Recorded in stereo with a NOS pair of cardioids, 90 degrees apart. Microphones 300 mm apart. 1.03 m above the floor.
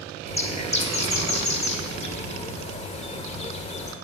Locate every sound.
0.3 s a bird: 20° left, 1.6 m